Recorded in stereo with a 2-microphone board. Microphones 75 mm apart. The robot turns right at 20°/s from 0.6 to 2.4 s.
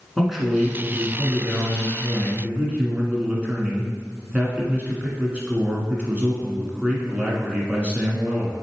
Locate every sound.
0.2 s a man speaking: 5° right (ahead or behind), 1.4 m; by 8.5 s 15° right (ahead or behind), 1.4 m